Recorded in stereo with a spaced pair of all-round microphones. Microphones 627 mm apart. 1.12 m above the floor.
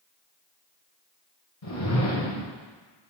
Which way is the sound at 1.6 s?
60° left (ahead or behind).